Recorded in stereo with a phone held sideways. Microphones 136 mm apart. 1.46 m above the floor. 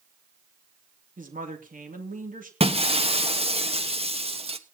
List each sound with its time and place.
1.2 s a woman speaking: 85° right, 3 m
2.6 s breaking glass: 45° right (ahead or behind), 1.2 m